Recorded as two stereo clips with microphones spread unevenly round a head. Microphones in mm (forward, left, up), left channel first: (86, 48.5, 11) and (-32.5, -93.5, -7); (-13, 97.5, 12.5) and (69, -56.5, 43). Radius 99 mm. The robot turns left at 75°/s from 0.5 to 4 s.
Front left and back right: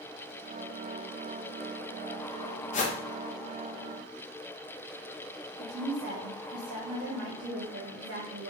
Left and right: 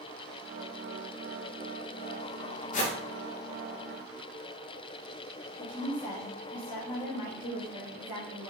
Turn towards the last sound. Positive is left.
turn(degrees=-160)